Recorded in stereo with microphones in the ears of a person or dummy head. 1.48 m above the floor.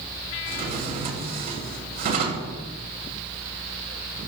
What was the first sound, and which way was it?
A drawer, 50° right (ahead or behind).